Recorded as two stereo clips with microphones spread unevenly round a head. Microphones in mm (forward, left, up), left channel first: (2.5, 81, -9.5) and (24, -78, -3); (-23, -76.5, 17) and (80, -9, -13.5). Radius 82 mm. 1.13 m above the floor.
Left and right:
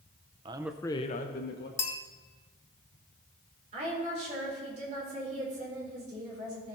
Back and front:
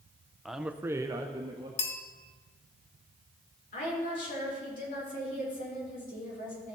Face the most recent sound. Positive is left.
turn(degrees=-135)